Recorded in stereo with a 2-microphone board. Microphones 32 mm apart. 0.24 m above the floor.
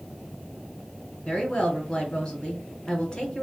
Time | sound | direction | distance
1.2 | a woman speaking | 25° left (ahead or behind) | 3 m